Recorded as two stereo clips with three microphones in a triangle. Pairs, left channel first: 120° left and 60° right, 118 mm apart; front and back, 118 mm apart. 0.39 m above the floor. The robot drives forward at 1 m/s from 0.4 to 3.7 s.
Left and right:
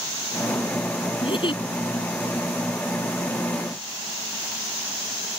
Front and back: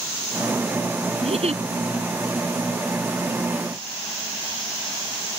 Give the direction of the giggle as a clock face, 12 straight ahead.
7 o'clock.